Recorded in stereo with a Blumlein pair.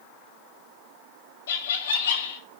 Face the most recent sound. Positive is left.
turn(degrees=60)